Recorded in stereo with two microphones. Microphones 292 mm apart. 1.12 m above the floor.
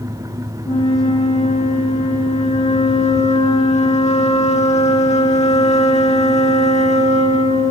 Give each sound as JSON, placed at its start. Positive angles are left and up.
{"t": 0.7, "sound": "a flute", "side_deg": 25, "distance_m": 1.5}